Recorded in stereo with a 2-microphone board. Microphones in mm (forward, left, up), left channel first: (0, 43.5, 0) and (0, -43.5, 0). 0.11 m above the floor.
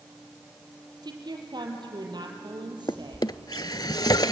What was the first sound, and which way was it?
A woman speaking, 60° right (ahead or behind).